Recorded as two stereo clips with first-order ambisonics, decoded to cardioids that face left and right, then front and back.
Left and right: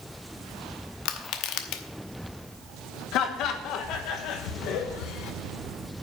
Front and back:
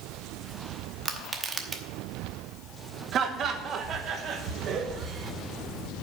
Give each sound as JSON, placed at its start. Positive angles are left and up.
{"t": 1.1, "sound": "crushing", "azimuth_deg": 110, "distance_m": 0.9}
{"t": 3.1, "sound": "laughter", "azimuth_deg": 125, "distance_m": 1.2}